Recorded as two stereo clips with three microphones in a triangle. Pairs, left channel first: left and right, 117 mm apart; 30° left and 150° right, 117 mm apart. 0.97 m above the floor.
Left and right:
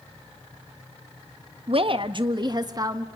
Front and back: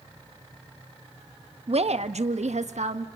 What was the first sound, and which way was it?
A woman speaking, 125° right.